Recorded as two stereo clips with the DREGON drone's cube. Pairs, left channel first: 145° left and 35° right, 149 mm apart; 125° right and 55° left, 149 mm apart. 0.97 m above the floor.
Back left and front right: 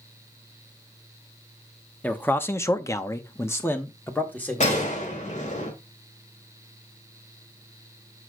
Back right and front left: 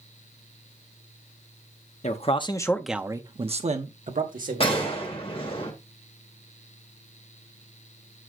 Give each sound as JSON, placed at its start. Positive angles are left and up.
{"t": 2.0, "sound": "a man speaking", "azimuth_deg": -140, "distance_m": 1.0}
{"t": 4.6, "sound": "a gunshot", "azimuth_deg": -175, "distance_m": 2.5}